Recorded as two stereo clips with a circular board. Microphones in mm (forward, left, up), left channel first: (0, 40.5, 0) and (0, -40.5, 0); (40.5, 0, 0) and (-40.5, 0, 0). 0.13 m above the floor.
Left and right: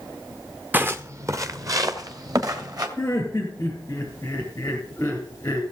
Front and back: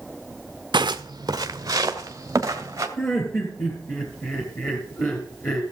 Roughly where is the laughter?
Ahead left.